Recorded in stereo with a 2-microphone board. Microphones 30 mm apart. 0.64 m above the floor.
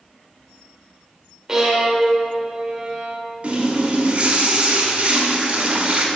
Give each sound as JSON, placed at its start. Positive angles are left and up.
{"t": 1.5, "sound": "a violin", "side_deg": -15, "distance_m": 1.5}
{"t": 3.4, "sound": "a running tap", "side_deg": -50, "distance_m": 1.4}